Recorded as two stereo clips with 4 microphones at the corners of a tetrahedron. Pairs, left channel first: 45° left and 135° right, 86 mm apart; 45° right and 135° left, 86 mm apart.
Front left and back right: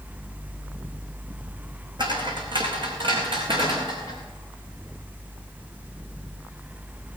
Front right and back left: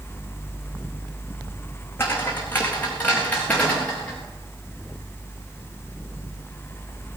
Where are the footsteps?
110° right, 3 m; by 4.2 s 125° right, 4.5 m.